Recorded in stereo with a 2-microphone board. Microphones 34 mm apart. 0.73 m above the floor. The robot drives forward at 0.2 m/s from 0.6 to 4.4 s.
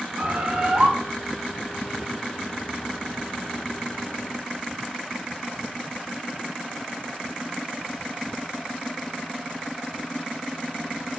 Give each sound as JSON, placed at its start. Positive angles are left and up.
{"t": 0.2, "sound": "a bird", "side_deg": -35, "distance_m": 0.5}